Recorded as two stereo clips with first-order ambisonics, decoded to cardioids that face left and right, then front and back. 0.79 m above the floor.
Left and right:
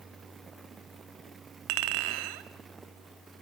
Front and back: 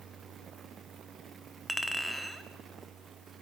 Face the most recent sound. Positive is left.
turn(degrees=-90)